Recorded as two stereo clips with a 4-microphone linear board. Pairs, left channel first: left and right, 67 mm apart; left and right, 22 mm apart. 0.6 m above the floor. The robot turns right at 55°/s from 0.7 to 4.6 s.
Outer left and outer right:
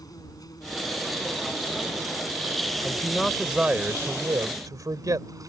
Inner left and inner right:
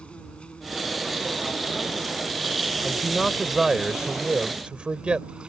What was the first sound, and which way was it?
An insect, 80° left.